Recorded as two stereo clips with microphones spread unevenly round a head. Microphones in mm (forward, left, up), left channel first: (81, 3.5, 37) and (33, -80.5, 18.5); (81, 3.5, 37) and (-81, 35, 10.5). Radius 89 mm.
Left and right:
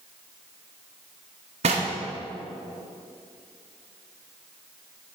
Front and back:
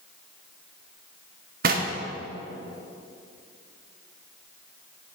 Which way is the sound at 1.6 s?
150° right.